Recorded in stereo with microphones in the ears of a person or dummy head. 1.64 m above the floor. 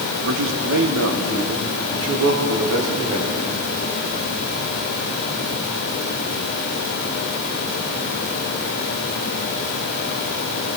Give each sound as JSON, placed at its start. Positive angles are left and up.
{"t": 0.2, "sound": "a man speaking", "side_deg": -65, "distance_m": 1.9}